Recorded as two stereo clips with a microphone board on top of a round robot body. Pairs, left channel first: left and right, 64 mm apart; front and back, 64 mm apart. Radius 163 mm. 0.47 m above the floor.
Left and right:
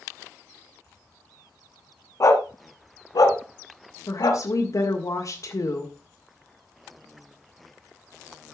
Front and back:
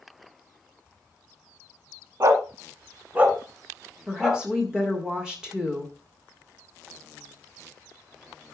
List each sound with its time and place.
2.2 s a dog barking: 135° left, 1.3 m; by 4.4 s 100° left, 2.5 m
4.1 s a woman speaking: 100° left, 2 m